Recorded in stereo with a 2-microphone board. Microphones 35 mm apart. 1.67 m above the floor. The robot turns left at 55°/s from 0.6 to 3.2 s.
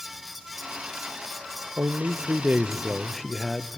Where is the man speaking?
100° right, 0.5 m; by 3.8 s straight behind, 0.5 m.